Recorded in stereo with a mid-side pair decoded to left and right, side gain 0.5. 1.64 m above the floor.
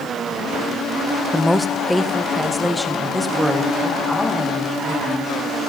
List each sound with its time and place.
1.3 s a woman speaking: straight ahead, 0.5 m; by 5.3 s 5° left, 2.5 m